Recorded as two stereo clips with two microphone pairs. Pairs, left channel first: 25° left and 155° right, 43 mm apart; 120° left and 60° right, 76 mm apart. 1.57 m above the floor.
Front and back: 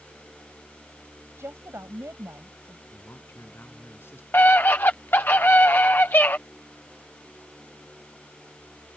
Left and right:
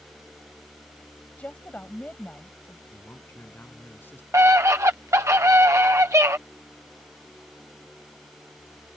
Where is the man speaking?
55° left.